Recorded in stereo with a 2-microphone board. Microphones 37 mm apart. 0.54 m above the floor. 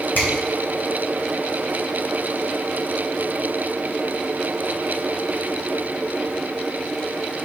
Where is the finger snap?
65° left (ahead or behind), 2.5 m.